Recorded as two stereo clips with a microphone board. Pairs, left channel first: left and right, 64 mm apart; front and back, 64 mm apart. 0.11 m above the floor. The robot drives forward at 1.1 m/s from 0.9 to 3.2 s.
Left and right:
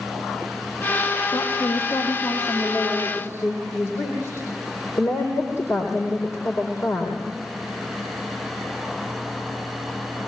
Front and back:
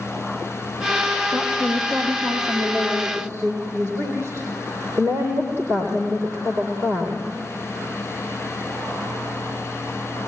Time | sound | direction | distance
1.3 | a woman speaking | 115° left | 3 m